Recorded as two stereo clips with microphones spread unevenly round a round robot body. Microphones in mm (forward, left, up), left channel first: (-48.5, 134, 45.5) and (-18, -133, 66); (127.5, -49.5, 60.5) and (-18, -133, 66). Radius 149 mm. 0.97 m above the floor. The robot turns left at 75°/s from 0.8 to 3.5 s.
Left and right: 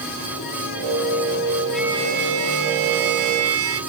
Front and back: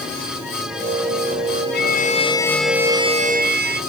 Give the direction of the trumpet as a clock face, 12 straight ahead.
12 o'clock.